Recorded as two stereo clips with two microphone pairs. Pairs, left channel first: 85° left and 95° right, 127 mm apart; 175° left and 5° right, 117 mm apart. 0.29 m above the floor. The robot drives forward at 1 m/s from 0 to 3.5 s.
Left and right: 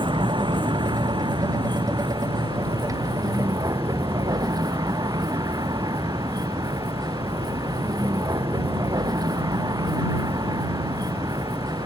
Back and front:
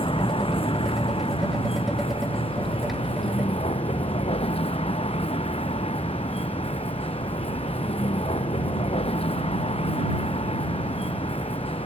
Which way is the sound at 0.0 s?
145° right.